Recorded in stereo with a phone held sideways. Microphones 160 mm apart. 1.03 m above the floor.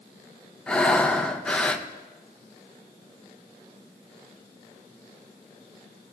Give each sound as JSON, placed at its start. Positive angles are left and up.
{"t": 0.7, "sound": "breathing", "side_deg": 5, "distance_m": 0.6}